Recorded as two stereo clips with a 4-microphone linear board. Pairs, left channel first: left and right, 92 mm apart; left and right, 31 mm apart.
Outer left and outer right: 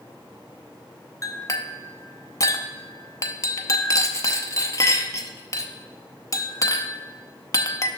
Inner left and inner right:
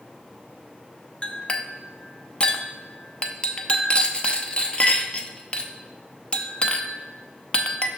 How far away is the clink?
About 0.6 m.